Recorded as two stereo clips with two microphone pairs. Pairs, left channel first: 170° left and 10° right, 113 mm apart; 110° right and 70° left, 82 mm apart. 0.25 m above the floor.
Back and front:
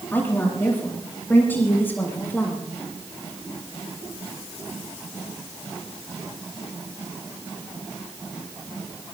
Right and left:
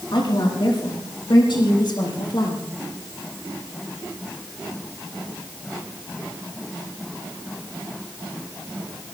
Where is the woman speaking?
120° right, 7.5 m.